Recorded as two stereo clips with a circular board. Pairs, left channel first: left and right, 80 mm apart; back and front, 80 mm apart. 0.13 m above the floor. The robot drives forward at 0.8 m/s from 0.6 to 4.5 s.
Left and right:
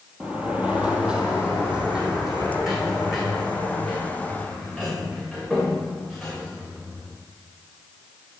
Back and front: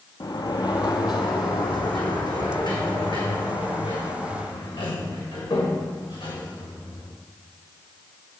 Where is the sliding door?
165° right, 1.2 m; by 7.1 s 175° right, 4.5 m.